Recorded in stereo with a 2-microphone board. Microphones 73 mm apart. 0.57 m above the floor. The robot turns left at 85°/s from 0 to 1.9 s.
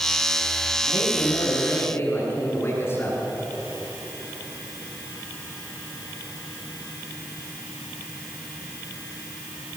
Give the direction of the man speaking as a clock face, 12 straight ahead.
8 o'clock.